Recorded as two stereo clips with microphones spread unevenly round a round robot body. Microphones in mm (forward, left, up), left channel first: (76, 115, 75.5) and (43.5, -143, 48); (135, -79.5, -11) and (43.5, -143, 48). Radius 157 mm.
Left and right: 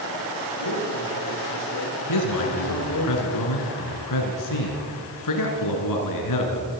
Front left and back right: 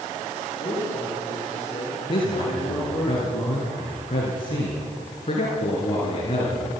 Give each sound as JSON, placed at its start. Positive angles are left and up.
{"t": 0.6, "sound": "a man speaking", "azimuth_deg": 105, "distance_m": 8.0}
{"t": 2.1, "sound": "a man speaking", "azimuth_deg": 90, "distance_m": 4.0}